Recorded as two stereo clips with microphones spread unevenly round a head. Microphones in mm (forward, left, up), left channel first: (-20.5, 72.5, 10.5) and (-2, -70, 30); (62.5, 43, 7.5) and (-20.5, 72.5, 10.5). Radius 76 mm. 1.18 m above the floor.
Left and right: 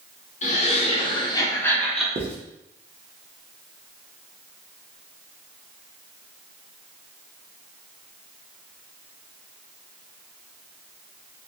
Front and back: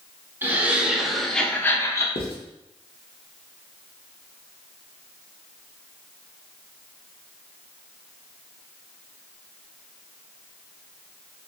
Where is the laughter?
95° left, 1.1 m; by 2.0 s 15° left, 0.9 m.